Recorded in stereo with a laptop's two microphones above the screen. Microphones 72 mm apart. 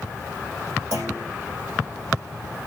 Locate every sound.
0.9 s a clunk: 50° right (ahead or behind), 7 m